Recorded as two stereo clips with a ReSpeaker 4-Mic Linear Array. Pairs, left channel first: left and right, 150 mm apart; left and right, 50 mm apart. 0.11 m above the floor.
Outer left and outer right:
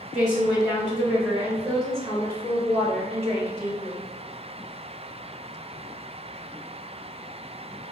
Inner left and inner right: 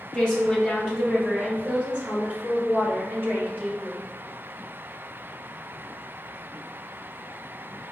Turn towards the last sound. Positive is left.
turn(degrees=-45)  # may be behind; listen again after turning